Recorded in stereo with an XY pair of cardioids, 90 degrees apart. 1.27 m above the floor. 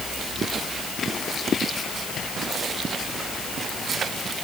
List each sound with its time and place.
Only background noise.